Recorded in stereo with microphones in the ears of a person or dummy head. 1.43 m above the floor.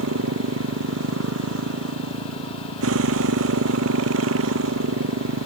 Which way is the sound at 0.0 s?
85° right.